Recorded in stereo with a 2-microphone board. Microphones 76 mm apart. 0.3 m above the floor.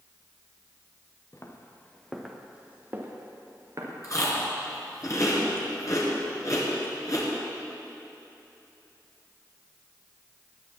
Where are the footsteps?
45° left (ahead or behind), 1.8 m; by 3.9 s 45° right (ahead or behind), 3.5 m.